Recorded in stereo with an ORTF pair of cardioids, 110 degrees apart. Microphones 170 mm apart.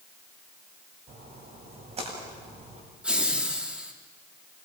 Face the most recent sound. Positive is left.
turn(degrees=-5)